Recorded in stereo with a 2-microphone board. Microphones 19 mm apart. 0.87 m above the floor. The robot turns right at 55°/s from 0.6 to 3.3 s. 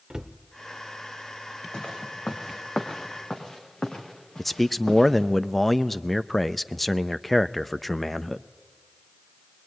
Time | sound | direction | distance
0.1 | a cupboard door | 40° right (ahead or behind) | 0.7 m
1.7 | footsteps | 70° left (ahead or behind) | 2.5 m
4.4 | a man speaking | 10° left (ahead or behind) | 0.6 m